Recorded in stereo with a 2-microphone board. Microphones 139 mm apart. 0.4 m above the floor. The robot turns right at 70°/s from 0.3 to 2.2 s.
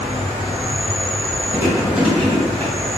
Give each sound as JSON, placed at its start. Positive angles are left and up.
{"t": 0.0, "sound": "an insect", "azimuth_deg": -60, "distance_m": 1.2}
{"t": 1.5, "sound": "chewing", "side_deg": -25, "distance_m": 1.2}